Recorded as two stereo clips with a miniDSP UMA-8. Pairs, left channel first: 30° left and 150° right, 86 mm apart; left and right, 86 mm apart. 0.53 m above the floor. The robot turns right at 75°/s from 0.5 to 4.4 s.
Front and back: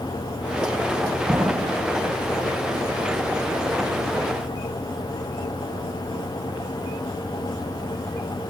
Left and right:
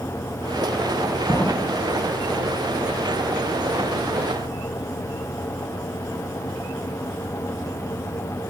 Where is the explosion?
150° left; by 1.9 s 170° right.